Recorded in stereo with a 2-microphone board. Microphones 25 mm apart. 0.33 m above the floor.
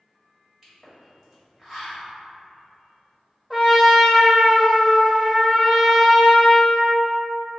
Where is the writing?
I don't hear writing.